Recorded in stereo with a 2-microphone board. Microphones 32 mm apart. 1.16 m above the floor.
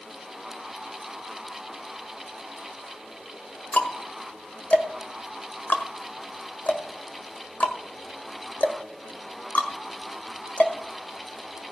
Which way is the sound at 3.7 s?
50° left (ahead or behind).